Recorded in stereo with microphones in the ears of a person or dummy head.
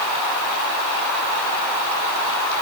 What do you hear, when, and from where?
Only background noise.